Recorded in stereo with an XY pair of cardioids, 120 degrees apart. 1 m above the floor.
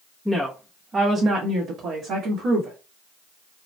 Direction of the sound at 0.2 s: 5° right.